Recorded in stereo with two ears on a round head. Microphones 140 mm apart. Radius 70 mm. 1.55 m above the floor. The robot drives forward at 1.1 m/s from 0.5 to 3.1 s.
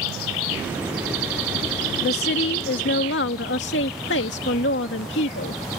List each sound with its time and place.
2.0 s a woman speaking: 70° left (ahead or behind); by 5.8 s 90° left